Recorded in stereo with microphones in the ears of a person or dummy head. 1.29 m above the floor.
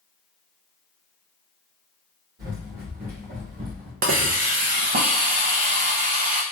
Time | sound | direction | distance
2.4 | running footsteps | 50° right (ahead or behind) | 1.9 m
4.0 | a hiss | 40° right (ahead or behind) | 0.5 m